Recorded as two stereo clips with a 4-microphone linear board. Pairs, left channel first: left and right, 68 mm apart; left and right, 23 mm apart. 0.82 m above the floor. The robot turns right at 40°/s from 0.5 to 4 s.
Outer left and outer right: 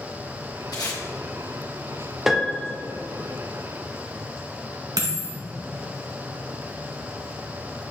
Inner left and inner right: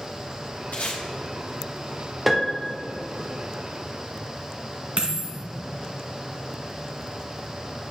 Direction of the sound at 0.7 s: 75° left (ahead or behind).